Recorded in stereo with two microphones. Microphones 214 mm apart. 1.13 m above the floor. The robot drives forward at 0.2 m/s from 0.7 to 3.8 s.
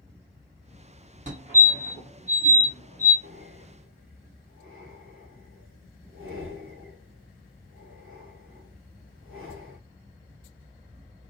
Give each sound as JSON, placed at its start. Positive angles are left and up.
{"t": 1.3, "sound": "a fire alarm", "side_deg": -35, "distance_m": 2.0}
{"t": 3.2, "sound": "breathing", "side_deg": -70, "distance_m": 1.7}